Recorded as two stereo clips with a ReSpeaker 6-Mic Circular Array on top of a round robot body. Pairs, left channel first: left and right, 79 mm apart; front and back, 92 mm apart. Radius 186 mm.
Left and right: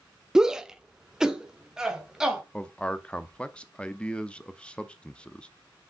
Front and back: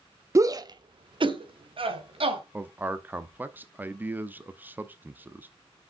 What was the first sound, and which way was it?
A shout, 165° right.